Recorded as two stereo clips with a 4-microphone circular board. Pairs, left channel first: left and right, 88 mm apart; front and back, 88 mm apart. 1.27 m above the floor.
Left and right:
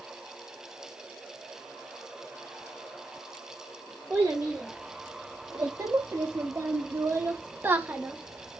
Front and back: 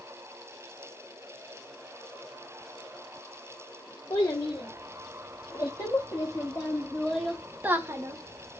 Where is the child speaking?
20° right, 1.8 m; by 8.6 s 170° right, 0.9 m.